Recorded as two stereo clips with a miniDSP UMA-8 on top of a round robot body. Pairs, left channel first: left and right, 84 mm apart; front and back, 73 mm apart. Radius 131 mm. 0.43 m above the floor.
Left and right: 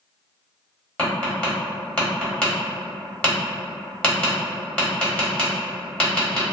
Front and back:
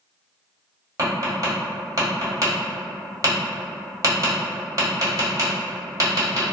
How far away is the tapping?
About 1.4 m.